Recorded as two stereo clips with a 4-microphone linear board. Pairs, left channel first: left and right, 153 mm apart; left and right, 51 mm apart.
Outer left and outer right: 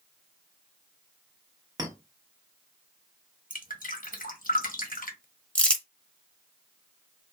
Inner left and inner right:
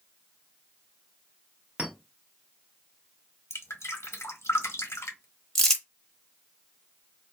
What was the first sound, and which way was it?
A clink, 25° right (ahead or behind).